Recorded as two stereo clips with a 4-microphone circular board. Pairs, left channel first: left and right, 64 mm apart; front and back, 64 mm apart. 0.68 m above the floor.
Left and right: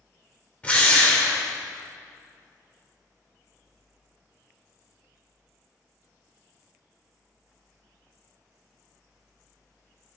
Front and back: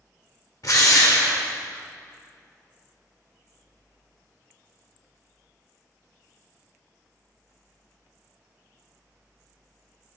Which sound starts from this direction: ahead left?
A drill, at 0.6 s.